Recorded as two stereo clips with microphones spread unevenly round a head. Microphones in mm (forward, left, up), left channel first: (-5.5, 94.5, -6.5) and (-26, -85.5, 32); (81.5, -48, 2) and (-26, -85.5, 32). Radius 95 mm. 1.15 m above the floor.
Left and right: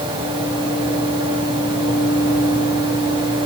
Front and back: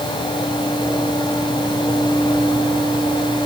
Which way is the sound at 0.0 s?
30° right.